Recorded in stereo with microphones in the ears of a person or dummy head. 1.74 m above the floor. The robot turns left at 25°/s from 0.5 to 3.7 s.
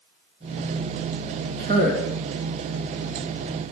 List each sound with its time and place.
1.6 s a man speaking: 40° right (ahead or behind), 1.3 m; by 2.1 s 50° right (ahead or behind), 1.3 m